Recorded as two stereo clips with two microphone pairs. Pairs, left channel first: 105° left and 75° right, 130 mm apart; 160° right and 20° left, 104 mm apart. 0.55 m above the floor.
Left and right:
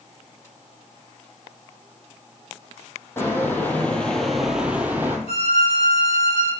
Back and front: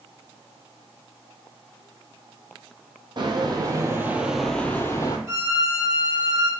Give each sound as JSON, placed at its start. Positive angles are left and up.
{"t": 3.2, "sound": "footsteps", "azimuth_deg": 40, "distance_m": 0.8}
{"t": 5.3, "sound": "a violin", "azimuth_deg": 80, "distance_m": 1.0}